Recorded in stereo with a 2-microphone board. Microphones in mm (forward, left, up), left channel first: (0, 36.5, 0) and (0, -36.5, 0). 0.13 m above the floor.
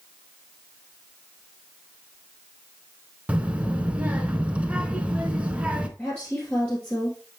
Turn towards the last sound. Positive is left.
turn(degrees=20)  # may be behind; listen again after turning